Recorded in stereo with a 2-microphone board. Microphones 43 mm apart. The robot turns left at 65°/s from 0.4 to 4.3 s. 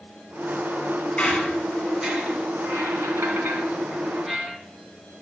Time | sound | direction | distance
1.2 | a squeak | 25° left (ahead or behind) | 2.5 m